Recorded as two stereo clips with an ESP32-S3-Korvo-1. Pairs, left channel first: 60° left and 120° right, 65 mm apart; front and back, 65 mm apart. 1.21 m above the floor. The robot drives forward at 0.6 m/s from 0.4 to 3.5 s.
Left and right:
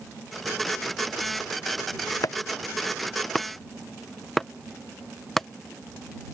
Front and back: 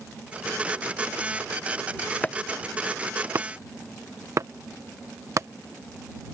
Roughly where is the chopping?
Ahead left.